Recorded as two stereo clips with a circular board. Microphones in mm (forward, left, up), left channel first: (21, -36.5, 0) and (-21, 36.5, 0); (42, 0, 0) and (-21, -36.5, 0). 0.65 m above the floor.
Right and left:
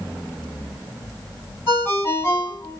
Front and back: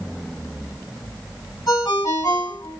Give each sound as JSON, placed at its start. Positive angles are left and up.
{"t": 1.7, "sound": "a ringtone", "azimuth_deg": 5, "distance_m": 2.0}